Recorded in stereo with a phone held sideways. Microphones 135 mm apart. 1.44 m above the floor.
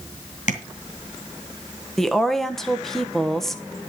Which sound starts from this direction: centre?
A woman speaking, at 2.0 s.